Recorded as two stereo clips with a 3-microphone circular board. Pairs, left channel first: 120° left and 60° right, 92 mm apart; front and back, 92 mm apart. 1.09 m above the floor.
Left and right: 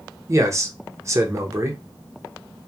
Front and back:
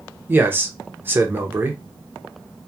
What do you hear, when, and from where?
0.3 s a man speaking: 115° right, 0.6 m